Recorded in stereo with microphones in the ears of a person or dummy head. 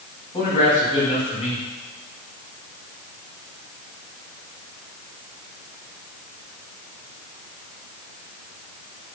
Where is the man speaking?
35° left (ahead or behind), 3.5 m.